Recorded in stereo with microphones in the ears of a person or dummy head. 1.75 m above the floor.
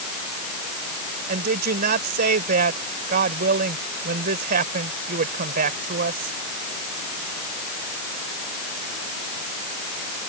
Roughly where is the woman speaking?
Right.